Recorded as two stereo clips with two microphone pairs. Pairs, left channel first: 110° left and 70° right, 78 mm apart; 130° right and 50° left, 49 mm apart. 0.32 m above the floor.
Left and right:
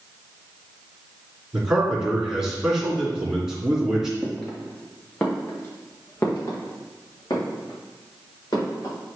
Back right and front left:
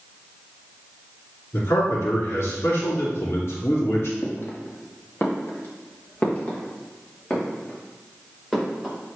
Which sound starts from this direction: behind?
Footsteps, at 4.2 s.